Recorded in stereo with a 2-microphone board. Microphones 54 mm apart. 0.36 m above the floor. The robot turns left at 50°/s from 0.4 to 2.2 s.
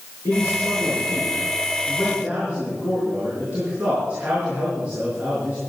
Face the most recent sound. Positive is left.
turn(degrees=-25)